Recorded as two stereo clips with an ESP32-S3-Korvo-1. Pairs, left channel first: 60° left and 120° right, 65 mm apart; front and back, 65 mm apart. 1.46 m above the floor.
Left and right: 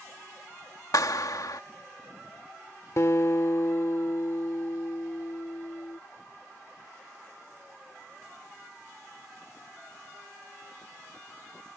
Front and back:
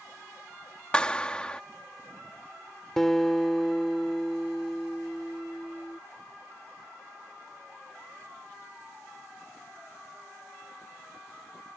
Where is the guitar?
80° left.